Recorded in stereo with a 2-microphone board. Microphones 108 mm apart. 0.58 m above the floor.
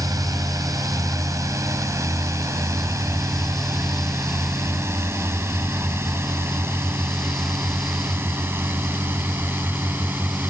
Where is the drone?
30° right (ahead or behind); by 10.5 s 20° right (ahead or behind).